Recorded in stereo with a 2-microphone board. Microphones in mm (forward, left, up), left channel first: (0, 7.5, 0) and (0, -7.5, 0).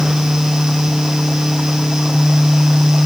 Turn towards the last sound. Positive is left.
No sound to turn to.